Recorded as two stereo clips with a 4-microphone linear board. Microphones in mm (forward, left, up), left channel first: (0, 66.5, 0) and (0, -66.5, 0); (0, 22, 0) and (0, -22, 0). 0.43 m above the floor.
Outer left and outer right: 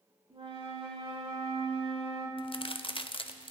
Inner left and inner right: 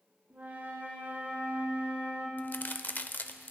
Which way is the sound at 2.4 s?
40° left (ahead or behind).